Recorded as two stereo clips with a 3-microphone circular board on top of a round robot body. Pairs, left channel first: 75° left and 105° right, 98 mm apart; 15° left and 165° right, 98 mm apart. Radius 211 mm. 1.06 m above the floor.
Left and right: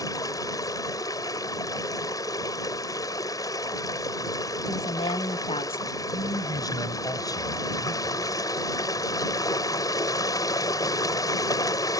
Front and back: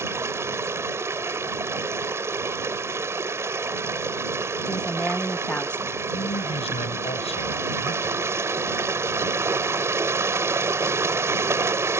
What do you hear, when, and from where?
0.0 s running water: 130° left
4.7 s a woman speaking: 95° left
6.1 s a man speaking: 20° left